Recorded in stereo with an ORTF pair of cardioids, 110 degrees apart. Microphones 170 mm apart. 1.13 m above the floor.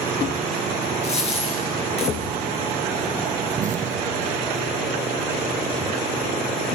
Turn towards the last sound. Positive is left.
turn(degrees=-45)